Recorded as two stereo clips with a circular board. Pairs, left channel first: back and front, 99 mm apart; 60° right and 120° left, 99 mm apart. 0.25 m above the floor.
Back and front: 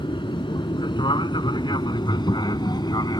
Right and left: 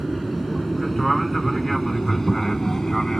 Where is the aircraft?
150° right; by 3.2 s 145° right.